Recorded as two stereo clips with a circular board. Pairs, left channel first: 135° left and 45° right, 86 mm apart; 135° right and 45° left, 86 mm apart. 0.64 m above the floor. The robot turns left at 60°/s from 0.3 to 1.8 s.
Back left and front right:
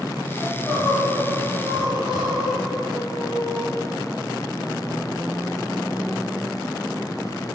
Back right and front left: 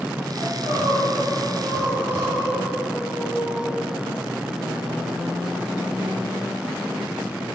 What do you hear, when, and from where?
0.4 s crying: 75° left, 5 m; by 3.7 s 10° right, 5 m